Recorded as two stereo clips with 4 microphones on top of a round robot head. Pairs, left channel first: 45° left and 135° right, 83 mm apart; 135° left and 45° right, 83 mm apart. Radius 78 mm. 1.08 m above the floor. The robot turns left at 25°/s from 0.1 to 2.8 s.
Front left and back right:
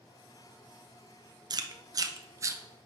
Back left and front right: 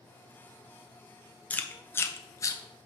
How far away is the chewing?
About 0.7 m.